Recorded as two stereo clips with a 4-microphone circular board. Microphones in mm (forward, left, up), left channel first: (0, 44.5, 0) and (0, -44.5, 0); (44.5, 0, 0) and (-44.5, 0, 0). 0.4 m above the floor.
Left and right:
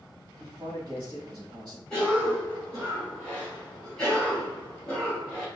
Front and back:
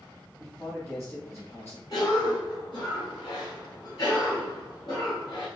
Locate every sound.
0.4 s a man speaking: 60° right, 2.5 m
1.9 s a cough: 10° left, 2.0 m